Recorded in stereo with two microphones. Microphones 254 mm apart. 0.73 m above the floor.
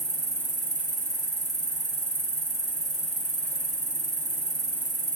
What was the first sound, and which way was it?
An insect, 30° left (ahead or behind).